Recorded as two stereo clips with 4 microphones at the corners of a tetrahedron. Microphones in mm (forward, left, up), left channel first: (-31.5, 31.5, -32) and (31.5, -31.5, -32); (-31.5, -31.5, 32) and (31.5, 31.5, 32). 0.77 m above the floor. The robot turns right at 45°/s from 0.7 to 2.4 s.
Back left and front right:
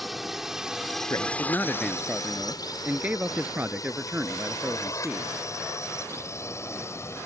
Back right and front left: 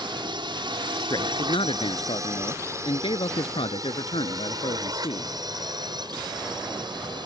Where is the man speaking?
175° right; by 5.3 s 120° right.